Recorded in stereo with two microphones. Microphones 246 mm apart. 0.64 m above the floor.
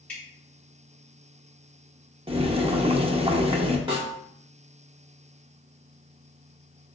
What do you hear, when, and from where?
0.1 s dripping: 5° left (ahead or behind), 1.6 m
2.3 s boiling: 25° right (ahead or behind), 0.5 m
3.9 s a snare drum: 20° right (ahead or behind), 1.6 m